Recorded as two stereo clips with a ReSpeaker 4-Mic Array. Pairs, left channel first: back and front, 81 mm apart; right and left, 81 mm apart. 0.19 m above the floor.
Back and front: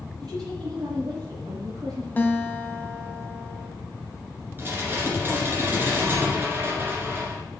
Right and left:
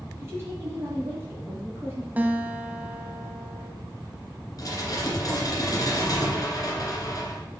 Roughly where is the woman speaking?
Ahead left.